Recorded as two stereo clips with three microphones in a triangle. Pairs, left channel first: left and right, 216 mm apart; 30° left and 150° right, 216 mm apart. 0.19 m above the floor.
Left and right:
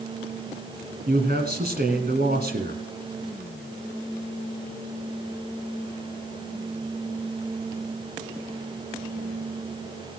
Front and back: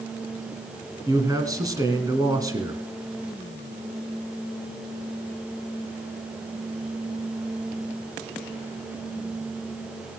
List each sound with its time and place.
1.1 s a man speaking: 80° right, 1.6 m